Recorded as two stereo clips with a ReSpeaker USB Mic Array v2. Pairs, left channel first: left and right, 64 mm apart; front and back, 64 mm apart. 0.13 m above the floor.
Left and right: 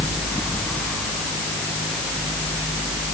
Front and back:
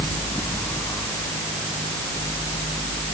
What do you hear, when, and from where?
Only background noise.